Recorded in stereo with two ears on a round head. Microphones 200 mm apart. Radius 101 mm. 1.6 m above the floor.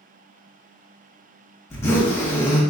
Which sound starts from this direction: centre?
A zipper, at 1.7 s.